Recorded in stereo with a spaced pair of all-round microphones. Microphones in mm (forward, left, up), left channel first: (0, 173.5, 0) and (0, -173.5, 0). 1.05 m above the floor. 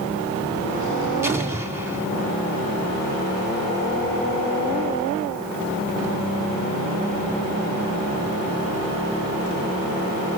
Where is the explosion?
10° right (ahead or behind), 2.5 m.